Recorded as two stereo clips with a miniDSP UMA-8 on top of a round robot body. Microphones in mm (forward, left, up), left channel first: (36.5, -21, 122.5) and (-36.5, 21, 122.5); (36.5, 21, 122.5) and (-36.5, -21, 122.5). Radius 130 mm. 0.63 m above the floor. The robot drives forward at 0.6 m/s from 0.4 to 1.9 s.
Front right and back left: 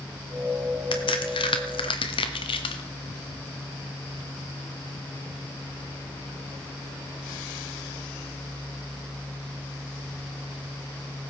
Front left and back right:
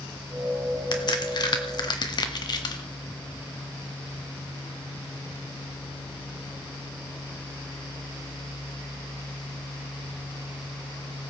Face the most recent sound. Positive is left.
turn(degrees=-10)